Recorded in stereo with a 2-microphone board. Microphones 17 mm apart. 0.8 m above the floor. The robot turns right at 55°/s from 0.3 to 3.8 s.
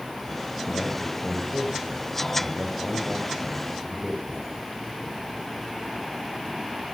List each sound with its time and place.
0.7 s a man speaking: 175° left, 5 m; by 4.6 s 10° right, 5 m